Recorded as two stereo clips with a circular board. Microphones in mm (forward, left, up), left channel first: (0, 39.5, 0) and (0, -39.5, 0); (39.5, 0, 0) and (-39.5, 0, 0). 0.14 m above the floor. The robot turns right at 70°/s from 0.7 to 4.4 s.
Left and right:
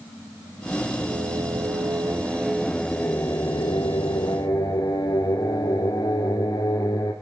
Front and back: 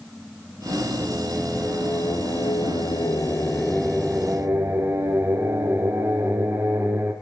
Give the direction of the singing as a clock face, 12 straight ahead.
4 o'clock.